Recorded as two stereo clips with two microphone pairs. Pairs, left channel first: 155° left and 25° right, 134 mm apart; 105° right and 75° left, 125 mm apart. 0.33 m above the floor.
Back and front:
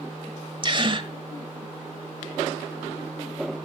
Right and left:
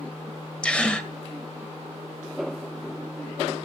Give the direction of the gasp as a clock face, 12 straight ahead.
1 o'clock.